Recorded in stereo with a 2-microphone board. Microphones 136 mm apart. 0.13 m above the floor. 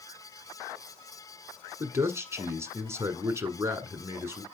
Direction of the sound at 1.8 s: 20° right (ahead or behind).